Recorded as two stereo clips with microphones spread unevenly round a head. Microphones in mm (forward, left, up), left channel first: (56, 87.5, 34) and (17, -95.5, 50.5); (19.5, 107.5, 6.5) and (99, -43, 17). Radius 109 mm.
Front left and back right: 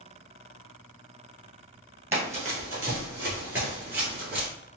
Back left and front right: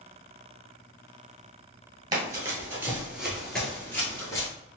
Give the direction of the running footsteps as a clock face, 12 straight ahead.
2 o'clock.